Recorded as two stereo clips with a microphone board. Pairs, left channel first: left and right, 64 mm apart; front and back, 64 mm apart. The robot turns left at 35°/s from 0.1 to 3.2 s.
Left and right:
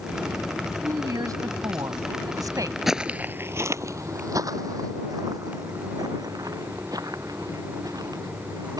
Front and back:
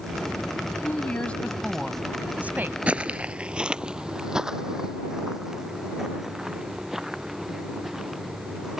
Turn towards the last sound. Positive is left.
turn(degrees=-95)